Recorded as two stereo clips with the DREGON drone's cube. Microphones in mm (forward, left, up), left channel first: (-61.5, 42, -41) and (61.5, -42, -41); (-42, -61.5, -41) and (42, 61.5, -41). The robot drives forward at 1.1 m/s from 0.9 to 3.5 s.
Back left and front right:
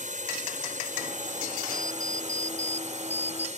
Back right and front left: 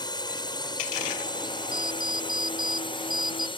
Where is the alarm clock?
60° left; by 3.5 s 70° left.